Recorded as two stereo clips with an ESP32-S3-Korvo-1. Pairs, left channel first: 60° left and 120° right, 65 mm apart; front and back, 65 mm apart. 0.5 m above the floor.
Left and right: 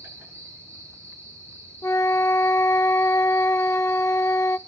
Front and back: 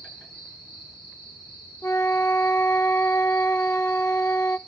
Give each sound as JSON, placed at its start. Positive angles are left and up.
{"t": 0.0, "sound": "an insect", "azimuth_deg": -75, "distance_m": 8.0}
{"t": 1.8, "sound": "a flute", "azimuth_deg": 35, "distance_m": 0.6}